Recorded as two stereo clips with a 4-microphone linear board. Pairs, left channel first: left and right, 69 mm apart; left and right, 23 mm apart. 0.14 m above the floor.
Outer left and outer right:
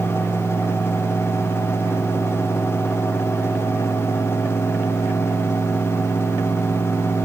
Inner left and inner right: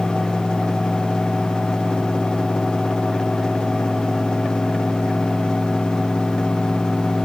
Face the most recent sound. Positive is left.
No sound to turn to.